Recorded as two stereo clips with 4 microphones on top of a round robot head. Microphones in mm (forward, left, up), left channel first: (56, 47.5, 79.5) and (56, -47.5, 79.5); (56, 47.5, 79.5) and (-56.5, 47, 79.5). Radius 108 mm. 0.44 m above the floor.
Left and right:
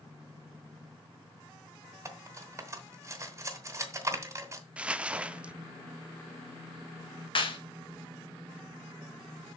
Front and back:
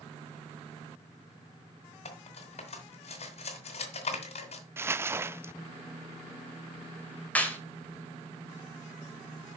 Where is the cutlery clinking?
30° right, 2 m.